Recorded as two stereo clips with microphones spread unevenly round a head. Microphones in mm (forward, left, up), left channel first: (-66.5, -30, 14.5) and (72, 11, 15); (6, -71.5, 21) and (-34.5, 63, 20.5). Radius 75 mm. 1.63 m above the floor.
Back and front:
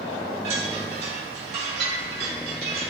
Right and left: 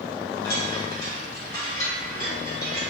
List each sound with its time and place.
0.4 s a chime: 5° right, 1.7 m